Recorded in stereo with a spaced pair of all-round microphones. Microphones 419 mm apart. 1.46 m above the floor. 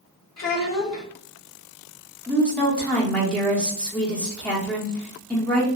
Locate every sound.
0.4 s a child speaking: 40° left (ahead or behind), 1.2 m
2.3 s a woman speaking: 5° left (ahead or behind), 1.0 m